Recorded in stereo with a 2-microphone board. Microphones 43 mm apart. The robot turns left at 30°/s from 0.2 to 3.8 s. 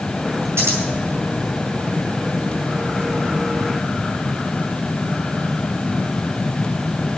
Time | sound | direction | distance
0.6 | scissors | 80° right | 4.5 m